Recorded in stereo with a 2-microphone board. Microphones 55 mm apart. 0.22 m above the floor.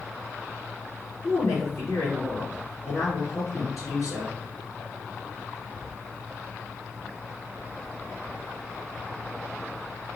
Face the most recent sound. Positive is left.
turn(degrees=65)  # may be behind; listen again after turning